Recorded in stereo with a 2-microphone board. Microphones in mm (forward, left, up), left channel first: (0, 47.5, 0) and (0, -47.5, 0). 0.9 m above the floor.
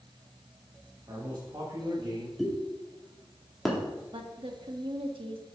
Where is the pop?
Centre (ahead or behind), 2 m.